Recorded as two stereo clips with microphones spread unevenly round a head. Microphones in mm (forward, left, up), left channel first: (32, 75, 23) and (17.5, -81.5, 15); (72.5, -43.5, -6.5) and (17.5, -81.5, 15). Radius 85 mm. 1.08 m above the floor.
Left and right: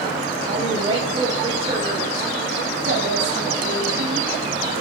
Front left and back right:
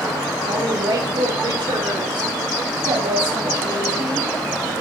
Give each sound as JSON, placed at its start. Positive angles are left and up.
{"t": 0.5, "sound": "a woman speaking", "azimuth_deg": -165, "distance_m": 4.5}